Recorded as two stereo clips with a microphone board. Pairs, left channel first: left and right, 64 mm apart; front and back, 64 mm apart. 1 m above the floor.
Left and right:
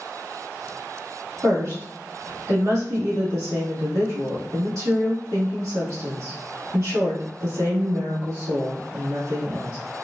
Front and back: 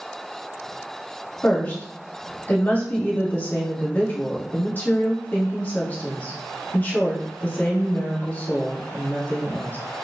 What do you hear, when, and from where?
1.4 s a woman speaking: 60° right, 2.0 m